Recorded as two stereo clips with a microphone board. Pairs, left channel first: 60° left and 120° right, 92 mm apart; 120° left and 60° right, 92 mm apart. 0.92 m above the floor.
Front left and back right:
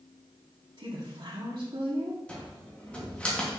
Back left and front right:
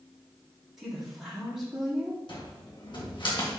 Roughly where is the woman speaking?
Behind right.